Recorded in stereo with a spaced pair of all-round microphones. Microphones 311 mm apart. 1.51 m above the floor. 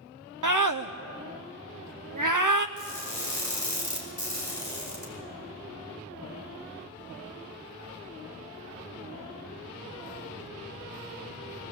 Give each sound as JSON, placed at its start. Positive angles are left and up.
{"t": 0.4, "sound": "a scream", "side_deg": -75, "distance_m": 0.7}
{"t": 2.8, "sound": "crushing", "side_deg": 60, "distance_m": 5.5}